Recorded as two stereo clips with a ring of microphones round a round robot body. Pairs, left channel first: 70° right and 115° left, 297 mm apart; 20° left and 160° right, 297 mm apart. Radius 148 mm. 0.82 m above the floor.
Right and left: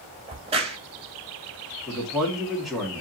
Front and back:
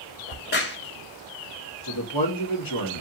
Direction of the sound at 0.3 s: 50° left.